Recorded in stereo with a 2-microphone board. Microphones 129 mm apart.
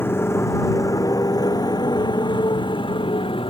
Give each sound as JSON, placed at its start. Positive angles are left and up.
{"t": 0.0, "sound": "a motorcycle", "side_deg": 20}